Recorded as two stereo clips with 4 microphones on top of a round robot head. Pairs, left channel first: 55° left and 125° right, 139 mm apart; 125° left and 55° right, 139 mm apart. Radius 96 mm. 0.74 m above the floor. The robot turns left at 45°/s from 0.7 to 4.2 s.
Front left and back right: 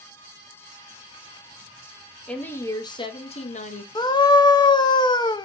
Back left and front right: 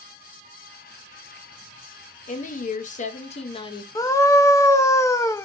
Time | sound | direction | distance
2.3 | a woman speaking | 140° left | 0.8 m
4.0 | a scream | 85° left | 0.6 m